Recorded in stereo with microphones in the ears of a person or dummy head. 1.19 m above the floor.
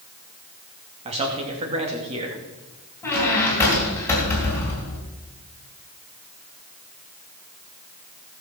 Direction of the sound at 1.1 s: 30° right (ahead or behind).